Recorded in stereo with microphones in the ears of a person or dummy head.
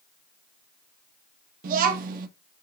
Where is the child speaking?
45° right (ahead or behind), 0.8 m.